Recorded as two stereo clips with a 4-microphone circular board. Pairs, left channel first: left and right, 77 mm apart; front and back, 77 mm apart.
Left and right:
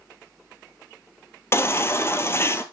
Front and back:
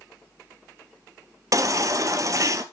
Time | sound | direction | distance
1.5 | a baby crying | 140° left | 0.7 m